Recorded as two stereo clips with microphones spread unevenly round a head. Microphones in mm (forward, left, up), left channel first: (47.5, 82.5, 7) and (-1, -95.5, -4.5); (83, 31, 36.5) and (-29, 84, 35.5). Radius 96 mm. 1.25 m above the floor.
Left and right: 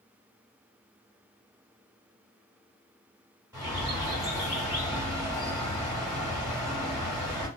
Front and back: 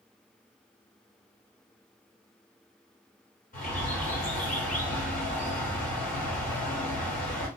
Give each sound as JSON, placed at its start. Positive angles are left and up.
{"t": 3.5, "sound": "a bird", "azimuth_deg": -30, "distance_m": 1.8}